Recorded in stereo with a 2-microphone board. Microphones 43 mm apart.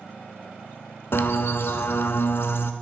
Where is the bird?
65° left (ahead or behind), 0.5 m.